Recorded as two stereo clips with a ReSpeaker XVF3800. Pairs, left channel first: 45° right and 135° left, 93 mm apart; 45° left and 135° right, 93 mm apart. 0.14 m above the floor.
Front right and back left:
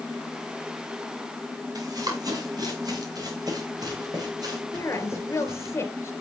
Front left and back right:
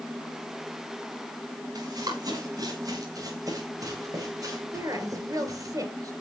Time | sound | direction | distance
1.8 | running footsteps | straight behind | 10 m
4.7 | a woman speaking | 100° right | 3 m